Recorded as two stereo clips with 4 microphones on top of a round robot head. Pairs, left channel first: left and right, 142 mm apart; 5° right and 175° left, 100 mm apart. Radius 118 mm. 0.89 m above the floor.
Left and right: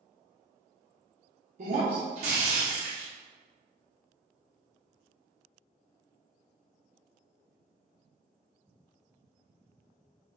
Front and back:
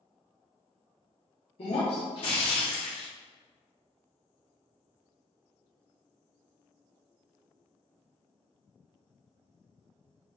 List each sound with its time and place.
1.6 s breaking glass: 45° right, 0.9 m